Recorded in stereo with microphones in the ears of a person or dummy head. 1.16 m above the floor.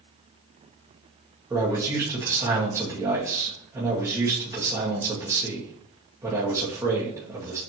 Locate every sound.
1.5 s a man speaking: 15° right (ahead or behind), 1.1 m